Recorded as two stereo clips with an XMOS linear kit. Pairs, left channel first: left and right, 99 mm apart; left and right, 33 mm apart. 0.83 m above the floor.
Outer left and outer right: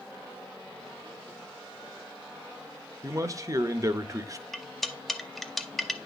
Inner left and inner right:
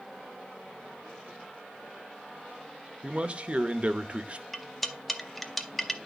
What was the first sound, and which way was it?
A man speaking, 35° right (ahead or behind).